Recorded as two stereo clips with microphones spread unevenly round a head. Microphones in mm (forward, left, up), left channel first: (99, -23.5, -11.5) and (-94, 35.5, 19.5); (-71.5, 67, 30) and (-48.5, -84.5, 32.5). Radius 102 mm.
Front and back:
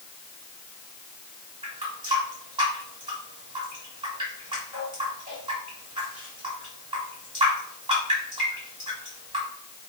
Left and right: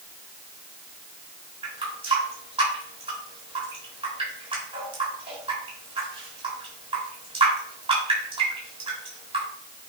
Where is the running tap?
130° right, 3.5 m.